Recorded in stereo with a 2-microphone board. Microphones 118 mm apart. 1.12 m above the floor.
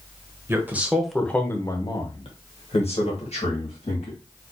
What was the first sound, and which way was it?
A man speaking, 20° right (ahead or behind).